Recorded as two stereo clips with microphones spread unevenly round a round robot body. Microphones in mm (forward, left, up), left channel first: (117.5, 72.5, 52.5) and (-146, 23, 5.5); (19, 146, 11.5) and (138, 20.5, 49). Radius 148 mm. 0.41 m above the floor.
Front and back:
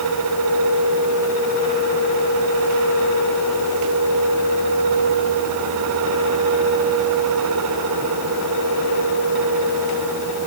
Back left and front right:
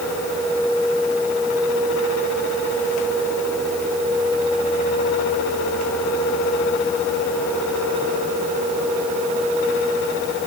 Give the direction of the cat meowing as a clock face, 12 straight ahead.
No cat meowing in this recording.